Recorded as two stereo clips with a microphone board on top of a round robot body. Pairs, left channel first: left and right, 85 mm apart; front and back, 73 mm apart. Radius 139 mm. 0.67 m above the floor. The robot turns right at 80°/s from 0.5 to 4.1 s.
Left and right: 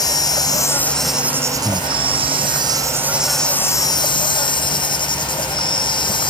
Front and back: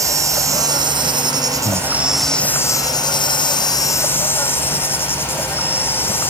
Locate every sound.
0.0 s an insect: 135° left; by 6.3 s 60° left
1.6 s breathing: 160° left; by 1.9 s 175° right